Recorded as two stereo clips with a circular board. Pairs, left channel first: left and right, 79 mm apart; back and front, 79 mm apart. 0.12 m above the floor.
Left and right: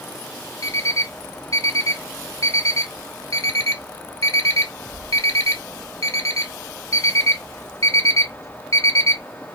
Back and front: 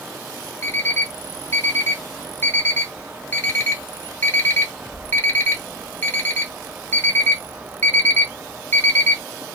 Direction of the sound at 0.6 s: 125° left.